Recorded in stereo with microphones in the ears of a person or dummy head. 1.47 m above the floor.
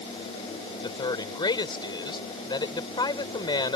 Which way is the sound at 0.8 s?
25° left (ahead or behind).